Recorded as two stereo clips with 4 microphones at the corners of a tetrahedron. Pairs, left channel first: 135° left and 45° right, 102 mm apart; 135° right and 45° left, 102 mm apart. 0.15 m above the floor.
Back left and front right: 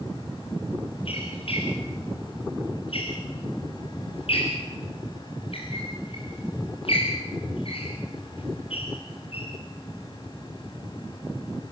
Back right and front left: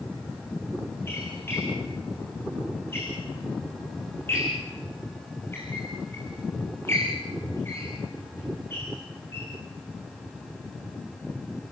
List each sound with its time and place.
1.1 s a squeak: 160° left, 9 m